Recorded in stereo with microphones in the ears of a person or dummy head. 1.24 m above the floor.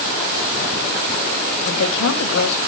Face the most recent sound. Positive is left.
turn(degrees=75)  # may be behind; listen again after turning